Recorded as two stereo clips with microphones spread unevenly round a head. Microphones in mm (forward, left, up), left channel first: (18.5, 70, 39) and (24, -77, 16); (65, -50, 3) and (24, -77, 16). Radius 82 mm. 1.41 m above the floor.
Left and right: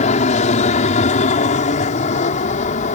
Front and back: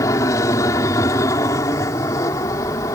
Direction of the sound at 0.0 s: 50° left.